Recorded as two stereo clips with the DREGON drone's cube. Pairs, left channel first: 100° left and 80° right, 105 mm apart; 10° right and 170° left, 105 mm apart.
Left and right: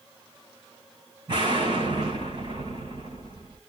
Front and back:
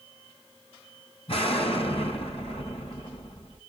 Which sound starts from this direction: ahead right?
An explosion, at 1.3 s.